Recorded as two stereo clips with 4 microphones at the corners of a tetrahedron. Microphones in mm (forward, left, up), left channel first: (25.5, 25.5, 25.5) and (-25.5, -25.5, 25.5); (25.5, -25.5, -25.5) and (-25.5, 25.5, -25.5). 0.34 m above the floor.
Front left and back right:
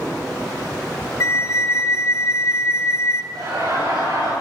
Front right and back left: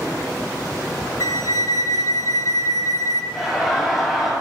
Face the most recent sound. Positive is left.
turn(degrees=-135)